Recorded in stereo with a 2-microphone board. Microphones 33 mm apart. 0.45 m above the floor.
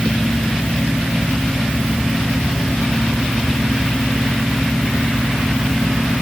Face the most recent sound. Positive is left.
No sound to turn to.